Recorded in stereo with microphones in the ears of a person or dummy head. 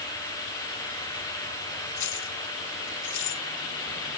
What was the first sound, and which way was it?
Keys jangling, 60° left (ahead or behind).